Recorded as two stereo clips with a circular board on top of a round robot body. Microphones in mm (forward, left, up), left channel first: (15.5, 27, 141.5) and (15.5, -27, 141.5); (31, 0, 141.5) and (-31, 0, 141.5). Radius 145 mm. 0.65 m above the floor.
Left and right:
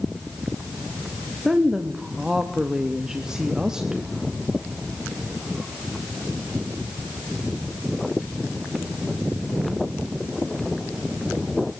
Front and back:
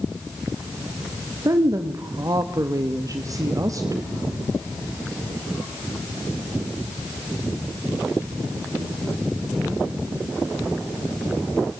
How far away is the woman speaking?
About 1.7 m.